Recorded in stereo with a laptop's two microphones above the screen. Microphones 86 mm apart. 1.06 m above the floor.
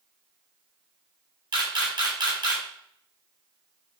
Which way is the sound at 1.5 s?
55° right (ahead or behind).